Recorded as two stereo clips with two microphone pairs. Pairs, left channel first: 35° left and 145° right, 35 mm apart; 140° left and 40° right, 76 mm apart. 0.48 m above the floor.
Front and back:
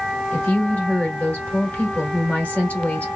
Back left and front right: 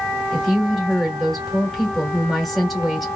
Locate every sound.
0.3 s a woman speaking: 55° left, 1.6 m